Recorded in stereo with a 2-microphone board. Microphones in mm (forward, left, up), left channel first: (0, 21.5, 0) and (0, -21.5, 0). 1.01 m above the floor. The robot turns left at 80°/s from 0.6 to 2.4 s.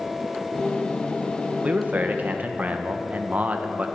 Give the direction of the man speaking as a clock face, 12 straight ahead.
2 o'clock.